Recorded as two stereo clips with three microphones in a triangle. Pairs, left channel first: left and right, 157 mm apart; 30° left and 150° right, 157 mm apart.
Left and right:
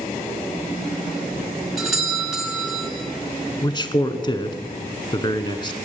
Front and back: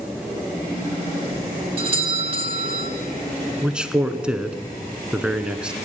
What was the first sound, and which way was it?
A doorbell, straight behind.